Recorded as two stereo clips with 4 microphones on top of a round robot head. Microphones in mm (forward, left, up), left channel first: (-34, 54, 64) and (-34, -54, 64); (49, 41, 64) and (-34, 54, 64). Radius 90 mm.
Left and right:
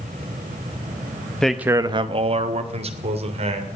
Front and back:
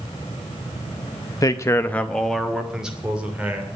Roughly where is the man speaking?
Ahead.